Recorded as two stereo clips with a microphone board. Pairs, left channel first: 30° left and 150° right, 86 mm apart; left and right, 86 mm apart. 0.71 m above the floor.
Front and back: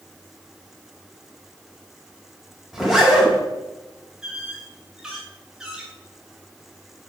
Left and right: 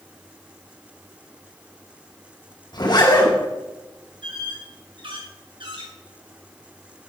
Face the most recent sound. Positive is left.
turn(degrees=-70)